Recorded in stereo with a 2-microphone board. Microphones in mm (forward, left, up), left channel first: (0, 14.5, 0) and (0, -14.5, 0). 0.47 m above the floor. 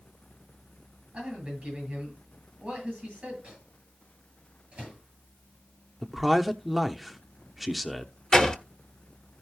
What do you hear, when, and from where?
1.1 s a man speaking: 30° right (ahead or behind), 8.5 m
3.4 s a microwave: 30° right (ahead or behind), 8 m
6.0 s a man speaking: 5° right (ahead or behind), 0.8 m
8.3 s a door slam: 25° left (ahead or behind), 1.1 m